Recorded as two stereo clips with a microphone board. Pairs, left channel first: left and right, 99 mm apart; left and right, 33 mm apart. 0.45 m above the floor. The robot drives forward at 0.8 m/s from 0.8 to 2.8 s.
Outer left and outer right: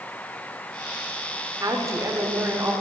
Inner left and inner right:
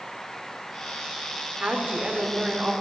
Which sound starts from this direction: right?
A woman speaking, at 1.6 s.